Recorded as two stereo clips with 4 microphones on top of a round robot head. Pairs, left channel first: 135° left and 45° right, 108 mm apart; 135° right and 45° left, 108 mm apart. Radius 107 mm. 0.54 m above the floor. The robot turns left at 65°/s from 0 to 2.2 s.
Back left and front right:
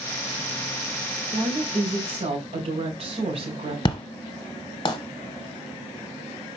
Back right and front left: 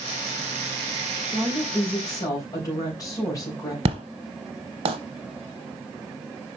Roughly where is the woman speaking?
Ahead.